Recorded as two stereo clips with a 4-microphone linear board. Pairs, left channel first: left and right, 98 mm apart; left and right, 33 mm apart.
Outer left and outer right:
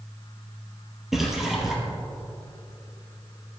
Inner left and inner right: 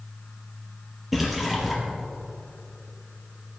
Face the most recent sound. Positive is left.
turn(degrees=-5)  # may be behind; listen again after turning